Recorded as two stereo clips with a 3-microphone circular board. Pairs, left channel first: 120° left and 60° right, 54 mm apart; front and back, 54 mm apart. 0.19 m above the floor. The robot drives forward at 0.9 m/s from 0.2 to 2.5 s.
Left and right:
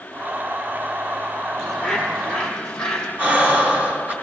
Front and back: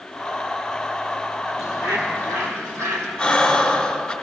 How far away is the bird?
About 1.3 m.